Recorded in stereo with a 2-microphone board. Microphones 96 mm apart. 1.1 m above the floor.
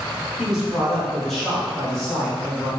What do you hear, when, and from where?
0.4 s a man speaking: 5° right (ahead or behind), 1.0 m; by 2.7 s 5° left (ahead or behind), 2.5 m